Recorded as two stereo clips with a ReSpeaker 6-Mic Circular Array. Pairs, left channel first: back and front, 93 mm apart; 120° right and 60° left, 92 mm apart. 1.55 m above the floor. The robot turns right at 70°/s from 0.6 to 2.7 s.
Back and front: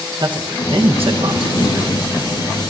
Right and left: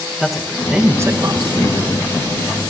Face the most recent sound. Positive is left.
turn(degrees=115)